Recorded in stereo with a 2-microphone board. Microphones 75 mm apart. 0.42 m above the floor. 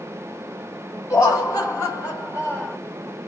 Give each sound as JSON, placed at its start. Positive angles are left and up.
{"t": 1.1, "sound": "laughter", "side_deg": 50, "distance_m": 1.7}